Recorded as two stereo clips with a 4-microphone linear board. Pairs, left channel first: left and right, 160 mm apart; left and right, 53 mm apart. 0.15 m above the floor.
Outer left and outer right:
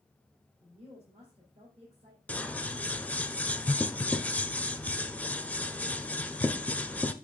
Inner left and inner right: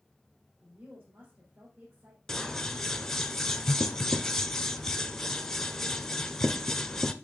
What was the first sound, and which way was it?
A woman speaking, 45° right (ahead or behind).